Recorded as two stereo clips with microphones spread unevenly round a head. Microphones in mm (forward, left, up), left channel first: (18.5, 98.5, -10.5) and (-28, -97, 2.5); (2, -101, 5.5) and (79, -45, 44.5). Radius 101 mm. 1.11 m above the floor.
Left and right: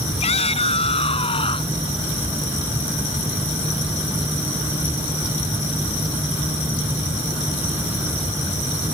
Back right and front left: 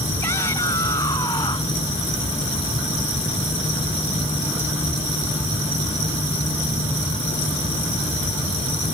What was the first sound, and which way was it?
A shout, 140° left.